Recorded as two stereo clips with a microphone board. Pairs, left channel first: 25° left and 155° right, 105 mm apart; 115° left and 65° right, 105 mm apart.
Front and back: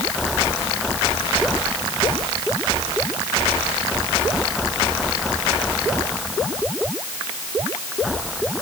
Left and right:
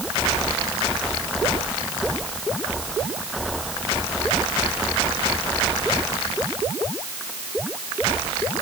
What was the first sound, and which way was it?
Only background noise.